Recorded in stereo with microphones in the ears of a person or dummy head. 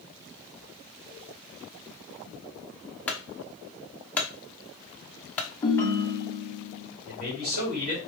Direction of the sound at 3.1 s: 5° left (ahead or behind).